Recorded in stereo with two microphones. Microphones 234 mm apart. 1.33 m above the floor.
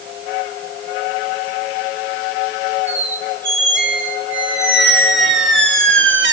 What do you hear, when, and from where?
2.9 s a squeak: 55° right (ahead or behind), 1.5 m